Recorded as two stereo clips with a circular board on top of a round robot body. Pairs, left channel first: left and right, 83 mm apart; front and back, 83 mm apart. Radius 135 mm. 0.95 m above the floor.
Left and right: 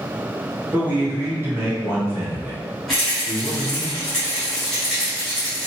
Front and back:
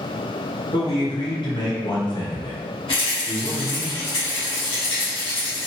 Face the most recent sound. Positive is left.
turn(degrees=5)